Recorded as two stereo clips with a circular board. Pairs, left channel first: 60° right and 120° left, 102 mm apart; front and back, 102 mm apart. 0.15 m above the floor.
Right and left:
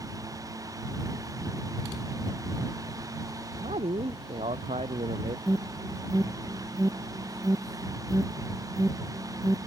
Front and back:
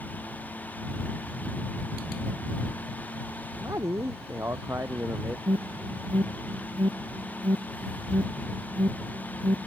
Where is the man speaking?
120° left; by 5.4 s 110° left.